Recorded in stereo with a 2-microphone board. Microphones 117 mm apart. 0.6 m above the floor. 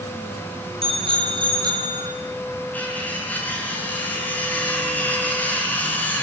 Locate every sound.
0.8 s a bicycle bell: 50° right (ahead or behind), 4 m; by 2.1 s 30° right (ahead or behind), 4 m
2.7 s cutlery clinking: 15° left (ahead or behind), 5 m